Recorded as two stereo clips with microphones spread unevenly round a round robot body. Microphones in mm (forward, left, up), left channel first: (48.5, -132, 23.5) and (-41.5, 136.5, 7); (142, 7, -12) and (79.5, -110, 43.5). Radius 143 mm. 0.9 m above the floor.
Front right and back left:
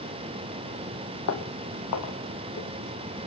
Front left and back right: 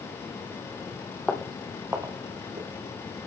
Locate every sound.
1.3 s footsteps: 40° right, 1.5 m; by 2.7 s 110° right, 1.7 m